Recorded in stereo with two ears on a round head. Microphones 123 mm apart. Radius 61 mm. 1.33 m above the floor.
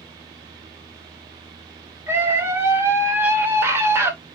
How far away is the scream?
About 0.9 m.